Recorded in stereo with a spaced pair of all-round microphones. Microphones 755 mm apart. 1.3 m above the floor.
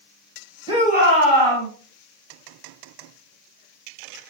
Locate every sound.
0.7 s a shout: 5° right (ahead or behind), 1.6 m; by 1.7 s 35° right (ahead or behind), 1.3 m